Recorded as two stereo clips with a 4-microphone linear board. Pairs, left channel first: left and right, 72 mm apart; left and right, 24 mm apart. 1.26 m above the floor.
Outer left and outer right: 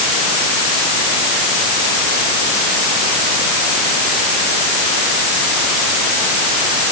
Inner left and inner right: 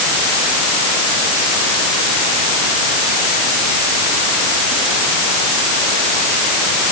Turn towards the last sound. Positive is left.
No sound to turn to.